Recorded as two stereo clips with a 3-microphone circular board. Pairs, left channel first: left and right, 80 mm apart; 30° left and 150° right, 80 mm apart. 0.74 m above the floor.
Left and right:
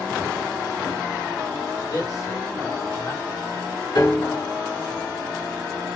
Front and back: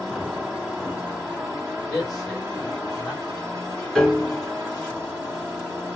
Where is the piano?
115° left, 1.2 m.